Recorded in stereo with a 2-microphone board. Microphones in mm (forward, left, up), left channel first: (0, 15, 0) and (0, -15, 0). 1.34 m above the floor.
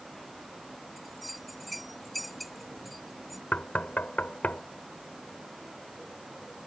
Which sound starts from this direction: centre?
A bell, at 1.0 s.